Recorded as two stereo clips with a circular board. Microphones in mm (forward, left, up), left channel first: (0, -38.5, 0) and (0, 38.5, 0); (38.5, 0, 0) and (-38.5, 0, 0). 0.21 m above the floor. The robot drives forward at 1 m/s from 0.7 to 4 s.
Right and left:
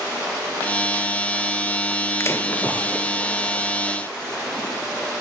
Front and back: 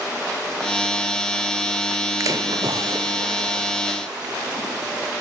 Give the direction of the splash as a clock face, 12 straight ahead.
5 o'clock.